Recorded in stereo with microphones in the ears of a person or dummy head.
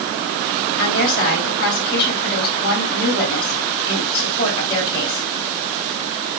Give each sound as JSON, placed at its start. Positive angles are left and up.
{"t": 0.8, "sound": "a woman speaking", "side_deg": 60, "distance_m": 6.5}